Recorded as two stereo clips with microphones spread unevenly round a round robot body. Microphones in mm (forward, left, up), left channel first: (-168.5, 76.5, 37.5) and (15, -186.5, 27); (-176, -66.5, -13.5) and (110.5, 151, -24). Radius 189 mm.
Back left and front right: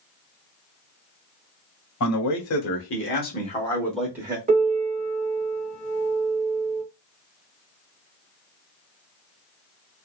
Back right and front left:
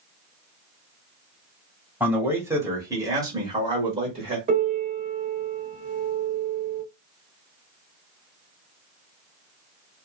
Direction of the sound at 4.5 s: 15° right.